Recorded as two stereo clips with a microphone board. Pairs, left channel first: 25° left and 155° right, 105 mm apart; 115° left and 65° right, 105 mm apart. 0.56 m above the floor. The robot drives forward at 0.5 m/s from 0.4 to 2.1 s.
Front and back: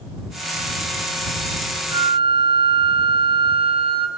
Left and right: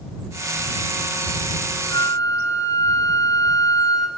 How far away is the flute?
About 1.7 m.